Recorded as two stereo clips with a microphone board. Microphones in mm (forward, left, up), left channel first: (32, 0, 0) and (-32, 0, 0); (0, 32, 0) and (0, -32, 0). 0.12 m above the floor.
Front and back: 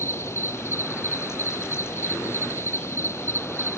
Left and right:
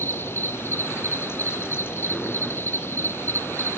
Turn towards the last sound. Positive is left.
turn(degrees=40)